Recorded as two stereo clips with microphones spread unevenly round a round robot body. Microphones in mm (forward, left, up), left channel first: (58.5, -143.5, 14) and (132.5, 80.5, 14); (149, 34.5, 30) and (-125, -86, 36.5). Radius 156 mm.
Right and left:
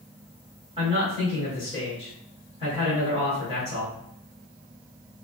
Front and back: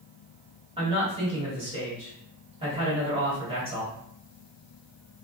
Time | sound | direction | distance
0.8 | a man speaking | 135° left | 1.5 m